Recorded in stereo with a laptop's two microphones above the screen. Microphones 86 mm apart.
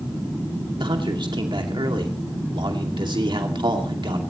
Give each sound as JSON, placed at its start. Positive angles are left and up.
{"t": 0.8, "sound": "a man speaking", "side_deg": -65, "distance_m": 2.5}